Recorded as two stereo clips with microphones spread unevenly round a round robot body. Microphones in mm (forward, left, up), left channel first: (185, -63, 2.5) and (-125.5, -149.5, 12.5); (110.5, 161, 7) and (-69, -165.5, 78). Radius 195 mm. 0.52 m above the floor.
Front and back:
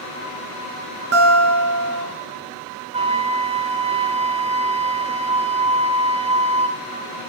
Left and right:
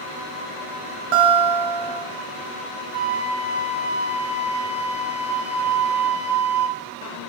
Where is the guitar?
125° right, 2.5 m.